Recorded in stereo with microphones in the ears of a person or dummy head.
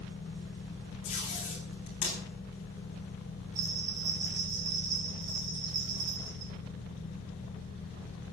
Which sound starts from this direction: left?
Tape being pulled, at 1.0 s.